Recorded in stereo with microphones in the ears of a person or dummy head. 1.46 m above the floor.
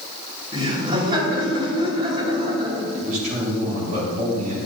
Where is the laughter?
30° right (ahead or behind), 3 m.